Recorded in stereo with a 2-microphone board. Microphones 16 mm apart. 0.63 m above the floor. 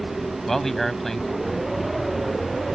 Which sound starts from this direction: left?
A man speaking, at 0.5 s.